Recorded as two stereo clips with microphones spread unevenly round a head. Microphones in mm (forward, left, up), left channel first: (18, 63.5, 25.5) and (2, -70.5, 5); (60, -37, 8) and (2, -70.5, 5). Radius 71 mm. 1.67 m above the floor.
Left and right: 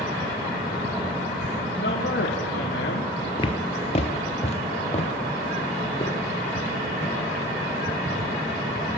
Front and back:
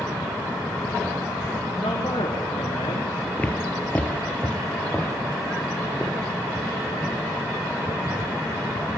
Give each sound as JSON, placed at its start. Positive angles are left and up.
{"t": 1.8, "sound": "a man speaking", "azimuth_deg": 80, "distance_m": 5.5}
{"t": 3.4, "sound": "footsteps", "azimuth_deg": 90, "distance_m": 2.0}